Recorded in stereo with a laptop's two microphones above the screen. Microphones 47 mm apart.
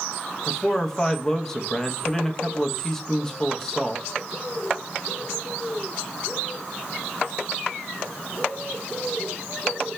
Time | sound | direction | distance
0.5 | a man speaking | 15° left (ahead or behind) | 0.6 m